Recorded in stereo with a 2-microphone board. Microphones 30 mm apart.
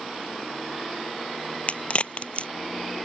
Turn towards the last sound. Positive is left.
turn(degrees=45)  # may be behind; listen again after turning